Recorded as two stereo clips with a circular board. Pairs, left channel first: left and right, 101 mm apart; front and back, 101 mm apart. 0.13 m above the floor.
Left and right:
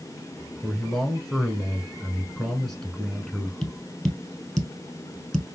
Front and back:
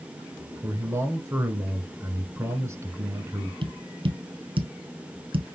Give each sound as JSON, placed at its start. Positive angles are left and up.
{"t": 0.6, "sound": "a man speaking", "azimuth_deg": 170, "distance_m": 1.2}
{"t": 3.6, "sound": "tapping", "azimuth_deg": 180, "distance_m": 1.4}